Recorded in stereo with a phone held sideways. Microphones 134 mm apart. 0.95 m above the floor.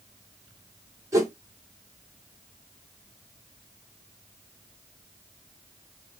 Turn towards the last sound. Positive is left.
turn(degrees=-25)  # may be behind; listen again after turning